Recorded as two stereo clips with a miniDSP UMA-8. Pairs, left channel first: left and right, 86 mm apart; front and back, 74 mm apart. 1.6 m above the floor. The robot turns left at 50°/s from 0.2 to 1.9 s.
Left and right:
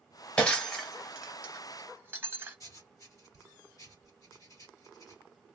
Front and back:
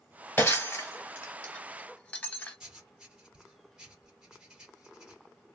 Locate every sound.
0.4 s breaking glass: 25° left, 0.9 m; by 2.6 s 50° right, 0.9 m
2.6 s writing: 105° left, 1.5 m